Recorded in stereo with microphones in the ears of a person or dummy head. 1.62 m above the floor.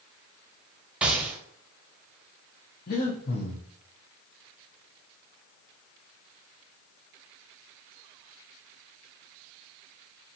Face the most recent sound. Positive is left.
turn(degrees=45)  # may be behind; listen again after turning